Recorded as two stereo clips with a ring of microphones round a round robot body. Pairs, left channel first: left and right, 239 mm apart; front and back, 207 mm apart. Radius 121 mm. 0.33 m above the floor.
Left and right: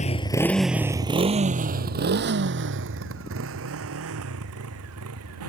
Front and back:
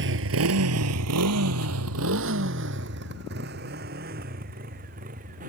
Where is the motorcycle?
150° left; by 5.5 s 120° right.